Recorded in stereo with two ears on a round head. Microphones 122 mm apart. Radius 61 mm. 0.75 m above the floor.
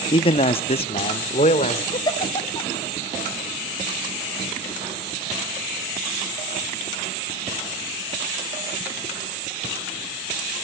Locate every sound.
0.1 s a man speaking: 35° left (ahead or behind), 0.6 m; by 1.8 s 45° left (ahead or behind), 2 m
1.9 s a giggle: 30° left (ahead or behind), 0.7 m